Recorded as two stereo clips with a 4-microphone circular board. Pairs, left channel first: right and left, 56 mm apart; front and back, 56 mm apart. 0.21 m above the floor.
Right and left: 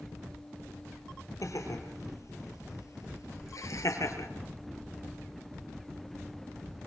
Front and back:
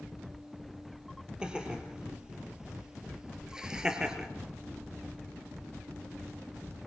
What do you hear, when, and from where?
1.4 s laughter: 110° right, 5.5 m; by 4.3 s 105° right, 3.5 m